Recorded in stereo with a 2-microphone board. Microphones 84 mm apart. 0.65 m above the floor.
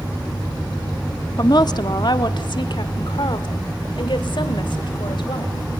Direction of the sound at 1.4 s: 50° left (ahead or behind).